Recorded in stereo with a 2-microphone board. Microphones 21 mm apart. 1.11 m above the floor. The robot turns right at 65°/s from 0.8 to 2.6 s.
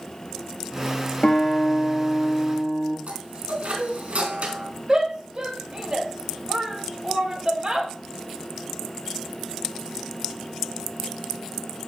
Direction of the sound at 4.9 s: 35° right (ahead or behind).